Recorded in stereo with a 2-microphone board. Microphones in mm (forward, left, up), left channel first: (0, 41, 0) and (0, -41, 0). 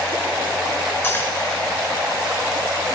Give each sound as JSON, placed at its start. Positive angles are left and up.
{"t": 1.0, "sound": "cutlery clinking", "side_deg": 30, "distance_m": 1.1}